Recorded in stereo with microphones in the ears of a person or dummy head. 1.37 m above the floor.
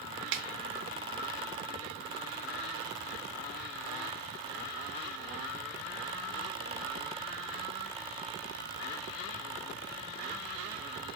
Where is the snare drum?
50° right (ahead or behind), 0.5 m.